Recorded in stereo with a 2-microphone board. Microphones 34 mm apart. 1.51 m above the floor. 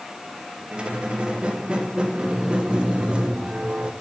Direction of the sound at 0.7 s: 25° right (ahead or behind).